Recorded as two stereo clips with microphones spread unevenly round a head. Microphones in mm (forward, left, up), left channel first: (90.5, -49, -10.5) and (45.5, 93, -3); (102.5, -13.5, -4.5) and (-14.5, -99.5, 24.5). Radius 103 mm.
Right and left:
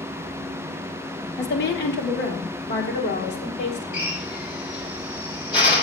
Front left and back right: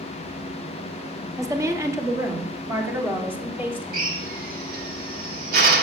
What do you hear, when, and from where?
1.4 s a woman speaking: 75° right, 2 m; by 4.1 s 70° right, 4 m
3.9 s a drill: 140° right, 2.5 m